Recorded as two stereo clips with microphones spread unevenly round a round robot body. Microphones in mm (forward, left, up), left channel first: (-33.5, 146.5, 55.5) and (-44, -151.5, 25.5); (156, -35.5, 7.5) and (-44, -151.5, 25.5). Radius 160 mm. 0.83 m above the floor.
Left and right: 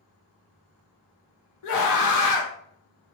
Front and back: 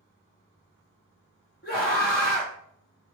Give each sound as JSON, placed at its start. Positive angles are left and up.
{"t": 1.6, "sound": "a scream", "azimuth_deg": 75, "distance_m": 0.8}